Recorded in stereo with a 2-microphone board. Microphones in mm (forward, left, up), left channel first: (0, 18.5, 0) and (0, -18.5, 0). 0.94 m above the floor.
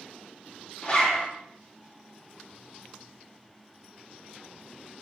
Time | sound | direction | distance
0.8 | a zipper | 30° left (ahead or behind) | 0.8 m